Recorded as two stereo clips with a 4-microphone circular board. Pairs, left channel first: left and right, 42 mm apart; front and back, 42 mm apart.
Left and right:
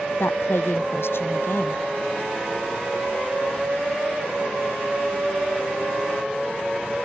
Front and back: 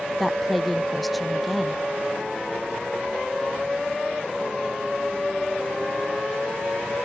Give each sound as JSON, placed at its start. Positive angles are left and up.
{"t": 0.2, "sound": "a woman speaking", "azimuth_deg": 90}